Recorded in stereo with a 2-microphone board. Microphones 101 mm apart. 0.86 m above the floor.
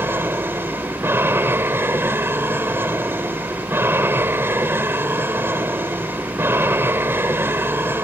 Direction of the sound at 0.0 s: 20° right (ahead or behind).